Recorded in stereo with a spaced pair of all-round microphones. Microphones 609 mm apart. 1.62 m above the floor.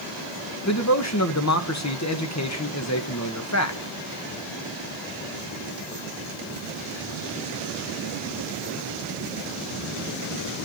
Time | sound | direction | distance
0.7 | a man speaking | 25° left (ahead or behind) | 1.4 m